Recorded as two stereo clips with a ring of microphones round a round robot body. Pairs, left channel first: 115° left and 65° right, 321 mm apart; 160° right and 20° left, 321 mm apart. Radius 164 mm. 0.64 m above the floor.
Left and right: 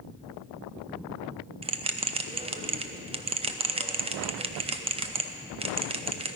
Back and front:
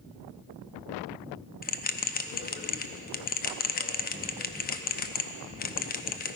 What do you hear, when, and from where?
1.6 s a bell: 125° right, 0.6 m